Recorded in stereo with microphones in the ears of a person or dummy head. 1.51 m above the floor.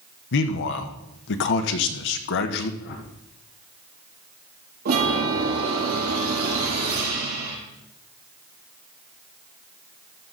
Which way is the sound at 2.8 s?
60° left (ahead or behind).